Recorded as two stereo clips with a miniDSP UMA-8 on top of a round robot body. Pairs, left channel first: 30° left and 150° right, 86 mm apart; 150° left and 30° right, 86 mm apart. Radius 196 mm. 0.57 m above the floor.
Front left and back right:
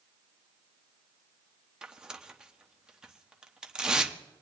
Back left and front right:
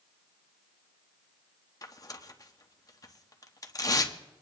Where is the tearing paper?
135° left, 1.2 m.